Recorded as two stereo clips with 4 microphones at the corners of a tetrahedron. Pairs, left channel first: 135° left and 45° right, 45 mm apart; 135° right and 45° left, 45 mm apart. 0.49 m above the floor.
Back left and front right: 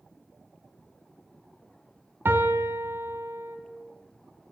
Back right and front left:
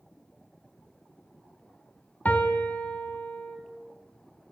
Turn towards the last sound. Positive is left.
turn(degrees=-80)